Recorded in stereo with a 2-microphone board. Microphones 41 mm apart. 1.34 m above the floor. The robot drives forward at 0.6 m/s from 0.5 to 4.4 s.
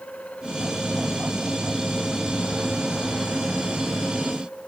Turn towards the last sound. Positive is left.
No sound to turn to.